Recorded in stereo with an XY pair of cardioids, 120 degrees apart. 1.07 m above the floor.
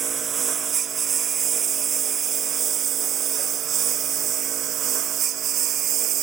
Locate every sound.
0.0 s a lawn mower: 40° right; by 6.2 s 60° right